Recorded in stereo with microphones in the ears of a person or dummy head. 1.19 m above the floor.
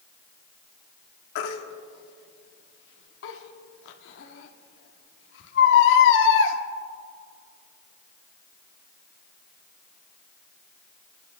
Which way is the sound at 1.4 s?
65° left (ahead or behind).